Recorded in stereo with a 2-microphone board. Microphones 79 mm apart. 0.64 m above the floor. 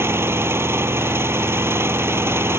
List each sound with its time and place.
0.0 s an engine running: 30° right (ahead or behind)